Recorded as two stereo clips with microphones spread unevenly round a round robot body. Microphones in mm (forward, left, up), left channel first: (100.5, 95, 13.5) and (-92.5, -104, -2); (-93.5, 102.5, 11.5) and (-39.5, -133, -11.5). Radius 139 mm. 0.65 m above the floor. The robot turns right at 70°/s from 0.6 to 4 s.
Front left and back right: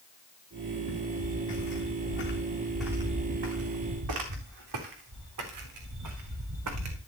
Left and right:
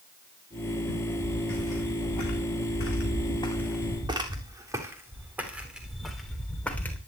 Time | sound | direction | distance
0.9 | footsteps | 15° left | 4.5 m